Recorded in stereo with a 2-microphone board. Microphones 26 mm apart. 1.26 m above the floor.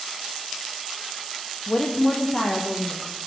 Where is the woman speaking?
20° left (ahead or behind), 0.9 m; by 3.2 s 30° left (ahead or behind), 1.9 m.